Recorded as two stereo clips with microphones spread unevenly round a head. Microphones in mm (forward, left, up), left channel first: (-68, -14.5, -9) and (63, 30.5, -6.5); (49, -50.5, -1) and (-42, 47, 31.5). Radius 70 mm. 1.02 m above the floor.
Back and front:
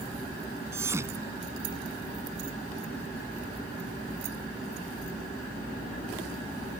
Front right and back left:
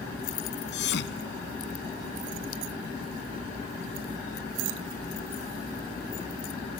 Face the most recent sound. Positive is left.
turn(degrees=-55)